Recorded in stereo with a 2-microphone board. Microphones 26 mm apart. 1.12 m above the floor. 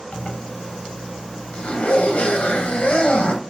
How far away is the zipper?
About 0.7 m.